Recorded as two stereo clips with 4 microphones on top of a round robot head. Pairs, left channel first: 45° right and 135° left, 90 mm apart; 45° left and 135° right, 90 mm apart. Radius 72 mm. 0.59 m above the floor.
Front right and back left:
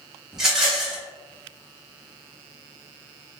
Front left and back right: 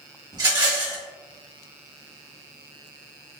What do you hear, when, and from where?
0.3 s a rattle: 140° right, 1.6 m